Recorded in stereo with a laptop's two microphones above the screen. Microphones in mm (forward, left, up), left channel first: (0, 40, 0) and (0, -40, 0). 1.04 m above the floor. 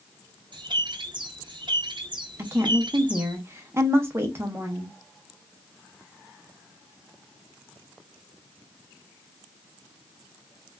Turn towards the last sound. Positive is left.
turn(degrees=-30)  # may be behind; listen again after turning